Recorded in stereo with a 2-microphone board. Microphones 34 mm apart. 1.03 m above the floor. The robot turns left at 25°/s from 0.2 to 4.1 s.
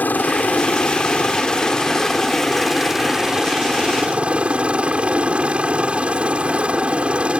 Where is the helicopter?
65° left; by 7.4 s 35° right.